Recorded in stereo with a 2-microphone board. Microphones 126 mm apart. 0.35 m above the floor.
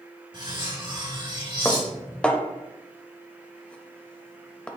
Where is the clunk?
I don't hear a clunk.